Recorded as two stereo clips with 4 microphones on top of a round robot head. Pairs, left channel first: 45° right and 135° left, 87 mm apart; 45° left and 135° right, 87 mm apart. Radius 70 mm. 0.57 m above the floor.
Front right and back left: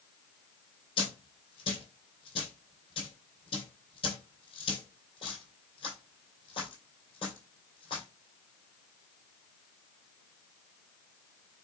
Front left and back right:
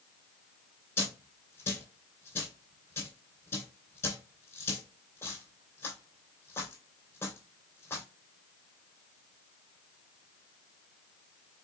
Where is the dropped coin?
15° right, 2.5 m.